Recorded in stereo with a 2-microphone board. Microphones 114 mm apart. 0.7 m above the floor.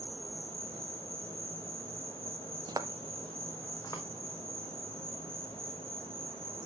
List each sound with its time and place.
0.0 s an insect: 50° right (ahead or behind), 2 m
2.7 s footsteps: 35° right (ahead or behind), 0.8 m; by 4.0 s 35° left (ahead or behind), 1.7 m